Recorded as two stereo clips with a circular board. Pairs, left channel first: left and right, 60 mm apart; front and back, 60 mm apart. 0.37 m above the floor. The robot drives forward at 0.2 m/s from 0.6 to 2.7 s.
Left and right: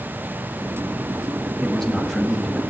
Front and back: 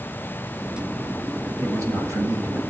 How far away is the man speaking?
About 2.0 m.